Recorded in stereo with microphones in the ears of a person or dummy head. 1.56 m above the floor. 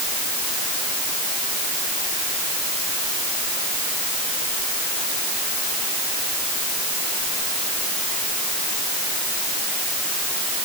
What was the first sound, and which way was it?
Only background noise.